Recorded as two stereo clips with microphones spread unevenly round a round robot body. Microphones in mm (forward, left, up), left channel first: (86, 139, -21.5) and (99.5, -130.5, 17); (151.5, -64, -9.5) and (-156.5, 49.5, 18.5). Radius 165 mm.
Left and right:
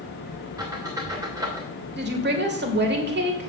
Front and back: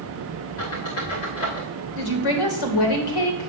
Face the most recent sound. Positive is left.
turn(degrees=-35)